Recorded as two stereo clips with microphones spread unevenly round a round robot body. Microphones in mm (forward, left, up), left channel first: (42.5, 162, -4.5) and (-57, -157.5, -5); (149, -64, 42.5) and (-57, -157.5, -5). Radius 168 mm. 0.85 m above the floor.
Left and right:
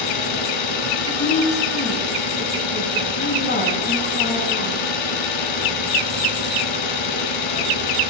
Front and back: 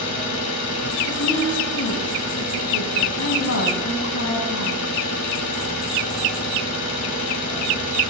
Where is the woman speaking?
10° left, 6 m.